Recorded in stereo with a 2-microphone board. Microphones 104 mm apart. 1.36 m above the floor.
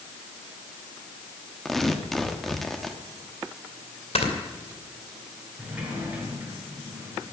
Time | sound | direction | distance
1.6 | tearing paper | 5° left (ahead or behind) | 1.2 m
4.2 | snoring | 70° left (ahead or behind) | 2.5 m
5.6 | a sliding door | 15° right (ahead or behind) | 4.5 m